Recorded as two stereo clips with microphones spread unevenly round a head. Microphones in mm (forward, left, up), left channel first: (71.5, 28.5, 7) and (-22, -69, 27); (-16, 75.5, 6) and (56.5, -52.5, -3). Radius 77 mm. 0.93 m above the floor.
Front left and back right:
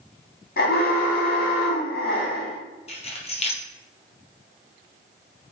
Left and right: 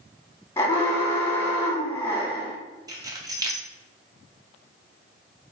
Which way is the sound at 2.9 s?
5° left.